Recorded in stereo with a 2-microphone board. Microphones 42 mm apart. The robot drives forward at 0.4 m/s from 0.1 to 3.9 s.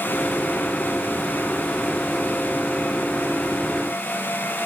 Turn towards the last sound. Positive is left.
No sound to turn to.